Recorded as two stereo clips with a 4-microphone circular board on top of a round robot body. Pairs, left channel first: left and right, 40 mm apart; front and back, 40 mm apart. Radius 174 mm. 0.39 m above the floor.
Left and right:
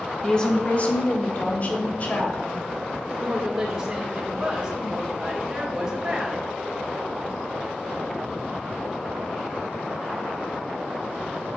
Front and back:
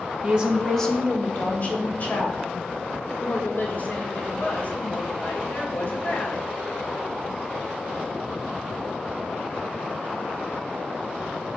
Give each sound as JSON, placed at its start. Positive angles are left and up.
{"t": 0.2, "sound": "a woman speaking", "azimuth_deg": 145, "distance_m": 1.2}
{"t": 3.1, "sound": "a woman speaking", "azimuth_deg": -20, "distance_m": 2.0}